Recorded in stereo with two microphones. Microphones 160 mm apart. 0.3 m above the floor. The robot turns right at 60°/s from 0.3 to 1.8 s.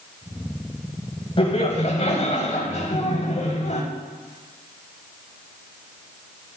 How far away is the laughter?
About 2 m.